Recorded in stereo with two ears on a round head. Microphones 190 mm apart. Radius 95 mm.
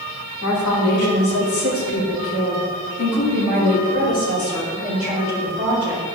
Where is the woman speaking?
75° left (ahead or behind), 3 m; by 6.0 s 25° left (ahead or behind), 5.5 m.